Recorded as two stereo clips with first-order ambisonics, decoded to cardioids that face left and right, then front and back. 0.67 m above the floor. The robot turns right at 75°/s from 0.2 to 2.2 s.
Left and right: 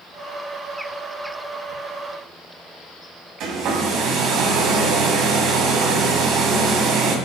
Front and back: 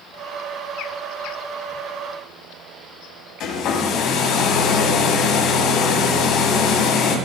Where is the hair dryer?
45° right, 2.5 m.